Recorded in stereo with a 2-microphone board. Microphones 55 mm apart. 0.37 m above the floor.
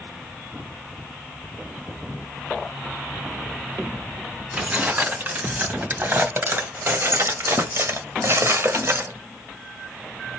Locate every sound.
4.5 s keys jangling: 30° right (ahead or behind), 2.5 m; by 9.1 s 50° right (ahead or behind), 1.3 m